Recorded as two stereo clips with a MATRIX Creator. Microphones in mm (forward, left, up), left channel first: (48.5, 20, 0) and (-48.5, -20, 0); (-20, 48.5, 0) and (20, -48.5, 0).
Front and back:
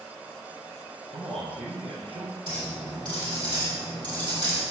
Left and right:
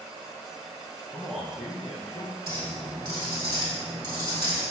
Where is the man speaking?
155° right, 3.5 m.